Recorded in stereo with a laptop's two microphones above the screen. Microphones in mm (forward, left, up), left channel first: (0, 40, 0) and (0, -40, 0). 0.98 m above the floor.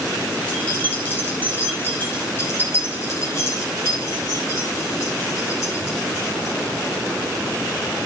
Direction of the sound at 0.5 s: 20° left (ahead or behind).